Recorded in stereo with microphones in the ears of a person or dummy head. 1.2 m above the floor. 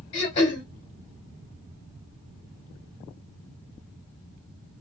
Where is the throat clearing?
35° left (ahead or behind), 1.4 m.